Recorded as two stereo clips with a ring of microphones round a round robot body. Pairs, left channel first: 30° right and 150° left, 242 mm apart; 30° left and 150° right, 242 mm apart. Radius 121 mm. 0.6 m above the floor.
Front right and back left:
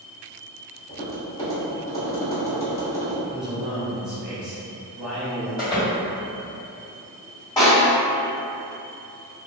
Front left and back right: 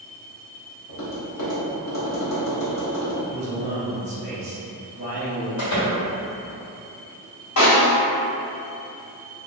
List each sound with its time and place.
0.9 s tapping: 45° left, 1.1 m
3.3 s a man speaking: 125° right, 0.9 m
5.6 s a door slam: 45° left, 1.5 m
7.6 s a snare drum: 45° left, 1.8 m